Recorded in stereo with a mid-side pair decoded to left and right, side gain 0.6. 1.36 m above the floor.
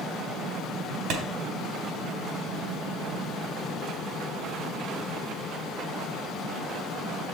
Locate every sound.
1.1 s a clap: 70° right, 3 m